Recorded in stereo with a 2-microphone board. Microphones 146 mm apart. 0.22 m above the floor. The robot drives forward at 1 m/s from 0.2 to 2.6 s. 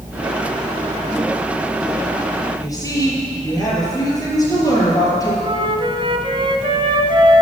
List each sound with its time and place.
2.6 s a woman speaking: 25° left (ahead or behind), 6.5 m
5.4 s a flute: 35° right (ahead or behind), 1.2 m